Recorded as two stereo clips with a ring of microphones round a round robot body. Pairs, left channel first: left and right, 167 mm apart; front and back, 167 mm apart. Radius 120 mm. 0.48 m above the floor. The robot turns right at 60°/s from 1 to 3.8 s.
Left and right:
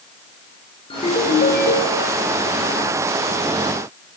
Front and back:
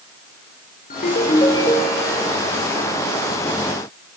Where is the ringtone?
35° left, 7 m; by 2.4 s 115° left, 7 m.